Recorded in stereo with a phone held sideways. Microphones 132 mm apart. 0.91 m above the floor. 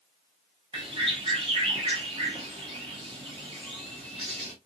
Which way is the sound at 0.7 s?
40° right (ahead or behind).